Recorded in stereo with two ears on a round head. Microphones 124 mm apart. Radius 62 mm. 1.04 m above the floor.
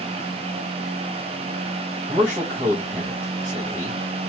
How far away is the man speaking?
About 1.0 m.